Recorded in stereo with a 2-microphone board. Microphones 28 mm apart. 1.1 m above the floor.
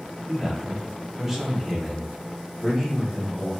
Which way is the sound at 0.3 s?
15° right (ahead or behind).